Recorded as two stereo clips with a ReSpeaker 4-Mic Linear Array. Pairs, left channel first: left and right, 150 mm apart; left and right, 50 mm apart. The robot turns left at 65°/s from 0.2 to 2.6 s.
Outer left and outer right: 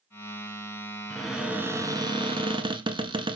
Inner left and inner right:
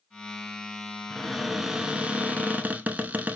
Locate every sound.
1.1 s a cupboard door: 10° left, 0.7 m; by 3.4 s 90° right, 0.7 m